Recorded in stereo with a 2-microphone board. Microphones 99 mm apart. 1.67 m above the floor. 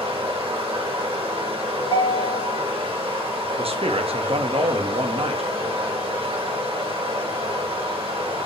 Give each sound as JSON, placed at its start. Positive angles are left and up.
{"t": 0.0, "sound": "running water", "side_deg": -65, "distance_m": 1.3}
{"t": 1.8, "sound": "a ringtone", "side_deg": 50, "distance_m": 1.5}
{"t": 3.6, "sound": "a man speaking", "side_deg": -70, "distance_m": 0.7}